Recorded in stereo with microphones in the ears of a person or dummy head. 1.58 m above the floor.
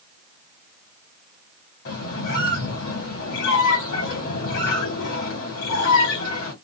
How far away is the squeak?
About 1.5 m.